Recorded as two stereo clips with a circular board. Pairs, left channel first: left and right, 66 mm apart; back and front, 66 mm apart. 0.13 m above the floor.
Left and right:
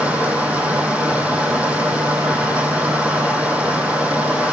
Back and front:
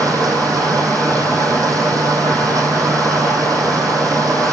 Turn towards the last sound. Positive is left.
turn(degrees=-25)